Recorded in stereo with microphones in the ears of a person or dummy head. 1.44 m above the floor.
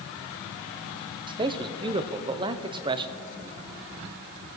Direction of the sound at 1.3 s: 25° right (ahead or behind).